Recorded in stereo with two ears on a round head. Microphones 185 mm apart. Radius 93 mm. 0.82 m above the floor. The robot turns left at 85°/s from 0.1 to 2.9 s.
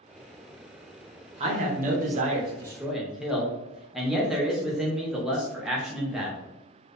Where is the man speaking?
50° right, 0.6 m; by 6.4 s 175° right, 0.6 m.